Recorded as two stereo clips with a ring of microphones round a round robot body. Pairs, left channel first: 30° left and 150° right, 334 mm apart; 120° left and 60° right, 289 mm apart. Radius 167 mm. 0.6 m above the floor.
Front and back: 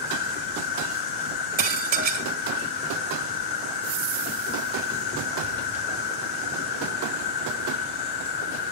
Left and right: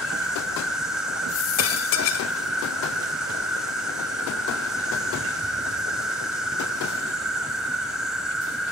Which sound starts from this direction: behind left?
Dishes clattering, at 1.6 s.